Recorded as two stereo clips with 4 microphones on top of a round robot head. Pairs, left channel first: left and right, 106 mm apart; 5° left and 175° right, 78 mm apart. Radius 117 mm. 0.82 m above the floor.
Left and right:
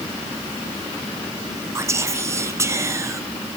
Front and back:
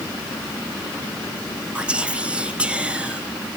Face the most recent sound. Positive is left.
turn(degrees=-115)